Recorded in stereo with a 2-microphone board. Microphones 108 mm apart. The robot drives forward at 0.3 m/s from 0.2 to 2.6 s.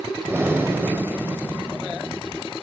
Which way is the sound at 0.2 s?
20° right (ahead or behind).